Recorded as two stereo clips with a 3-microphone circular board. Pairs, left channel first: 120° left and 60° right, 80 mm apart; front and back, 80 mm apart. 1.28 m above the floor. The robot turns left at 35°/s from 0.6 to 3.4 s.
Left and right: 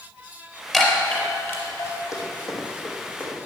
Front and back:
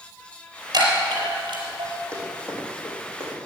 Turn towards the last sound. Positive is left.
turn(degrees=40)